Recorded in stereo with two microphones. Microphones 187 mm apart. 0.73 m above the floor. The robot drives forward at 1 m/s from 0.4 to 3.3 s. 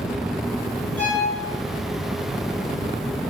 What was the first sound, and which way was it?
A violin, 10° left (ahead or behind).